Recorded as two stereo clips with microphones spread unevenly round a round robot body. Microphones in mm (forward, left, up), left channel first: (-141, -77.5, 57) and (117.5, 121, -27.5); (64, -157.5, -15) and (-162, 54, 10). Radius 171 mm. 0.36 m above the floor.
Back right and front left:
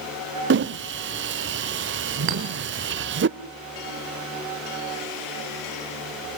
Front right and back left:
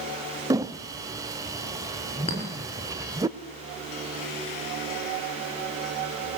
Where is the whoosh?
55° left, 0.5 m.